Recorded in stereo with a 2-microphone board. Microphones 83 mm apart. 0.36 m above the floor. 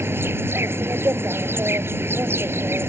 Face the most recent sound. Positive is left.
turn(degrees=-30)  # may be behind; listen again after turning